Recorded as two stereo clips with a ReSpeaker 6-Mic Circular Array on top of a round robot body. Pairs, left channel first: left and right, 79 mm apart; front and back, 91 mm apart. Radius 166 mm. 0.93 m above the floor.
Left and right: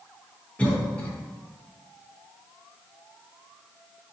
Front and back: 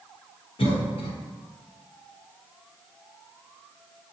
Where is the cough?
15° left, 1.0 m.